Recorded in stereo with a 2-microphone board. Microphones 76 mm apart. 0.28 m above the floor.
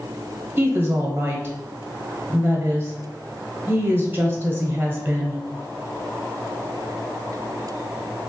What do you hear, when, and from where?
0.6 s a woman speaking: 30° right (ahead or behind), 1.0 m